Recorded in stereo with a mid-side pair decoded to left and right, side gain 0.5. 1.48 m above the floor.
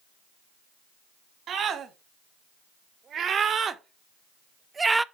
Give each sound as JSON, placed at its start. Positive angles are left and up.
{"t": 1.5, "sound": "a scream", "azimuth_deg": -55, "distance_m": 2.5}